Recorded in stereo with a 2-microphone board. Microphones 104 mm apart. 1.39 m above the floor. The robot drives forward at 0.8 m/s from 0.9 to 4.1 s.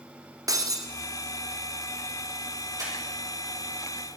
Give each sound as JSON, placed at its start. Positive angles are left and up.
{"t": 0.5, "sound": "breaking glass", "side_deg": -35, "distance_m": 1.6}
{"t": 2.8, "sound": "breathing", "side_deg": -35, "distance_m": 4.5}